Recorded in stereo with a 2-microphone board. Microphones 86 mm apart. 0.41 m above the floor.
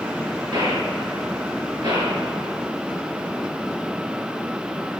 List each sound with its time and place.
0.5 s a gunshot: 60° right (ahead or behind), 7 m